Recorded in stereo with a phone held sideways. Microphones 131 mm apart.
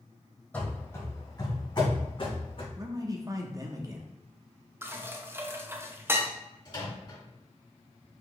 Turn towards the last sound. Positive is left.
turn(degrees=35)  # may be behind; listen again after turning